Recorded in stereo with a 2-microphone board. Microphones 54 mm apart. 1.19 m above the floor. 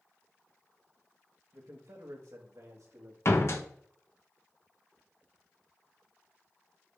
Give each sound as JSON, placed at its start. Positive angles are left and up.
{"t": 1.5, "sound": "a man speaking", "side_deg": -70, "distance_m": 1.4}
{"t": 3.2, "sound": "a door slam", "side_deg": 55, "distance_m": 0.9}